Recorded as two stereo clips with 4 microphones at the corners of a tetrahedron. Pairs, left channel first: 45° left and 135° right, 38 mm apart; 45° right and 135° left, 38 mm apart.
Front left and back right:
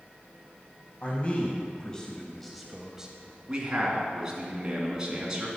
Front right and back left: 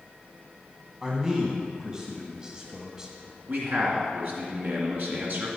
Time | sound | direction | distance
1.0 | a man speaking | 75° left | 1.4 m
3.5 | a man speaking | 155° left | 2.5 m